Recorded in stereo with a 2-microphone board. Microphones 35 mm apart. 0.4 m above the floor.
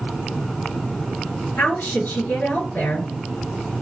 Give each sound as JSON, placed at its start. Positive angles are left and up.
{"t": 1.6, "sound": "a woman speaking", "side_deg": 80, "distance_m": 3.5}